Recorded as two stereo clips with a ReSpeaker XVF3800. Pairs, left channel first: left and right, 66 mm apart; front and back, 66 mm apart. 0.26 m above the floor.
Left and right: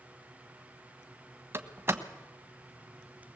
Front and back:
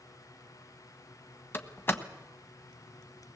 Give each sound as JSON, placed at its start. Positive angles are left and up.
{"t": 1.5, "sound": "a door slam", "azimuth_deg": -45, "distance_m": 1.4}